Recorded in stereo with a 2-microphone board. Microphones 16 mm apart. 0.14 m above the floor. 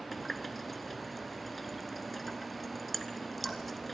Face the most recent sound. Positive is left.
turn(degrees=0)  # may be behind; listen again after turning